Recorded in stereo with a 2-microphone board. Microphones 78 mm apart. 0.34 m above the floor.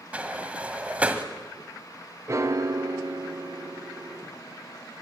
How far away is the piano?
About 0.8 m.